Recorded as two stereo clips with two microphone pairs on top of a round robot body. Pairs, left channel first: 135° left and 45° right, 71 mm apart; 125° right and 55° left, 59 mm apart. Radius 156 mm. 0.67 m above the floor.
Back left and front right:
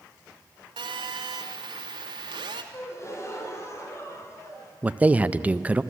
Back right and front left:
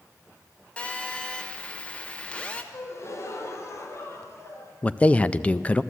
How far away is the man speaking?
About 0.6 m.